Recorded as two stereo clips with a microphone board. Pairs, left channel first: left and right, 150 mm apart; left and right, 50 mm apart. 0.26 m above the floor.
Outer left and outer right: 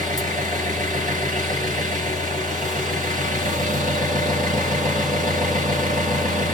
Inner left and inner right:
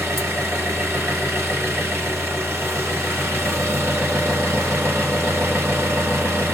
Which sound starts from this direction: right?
An engine running, at 0.0 s.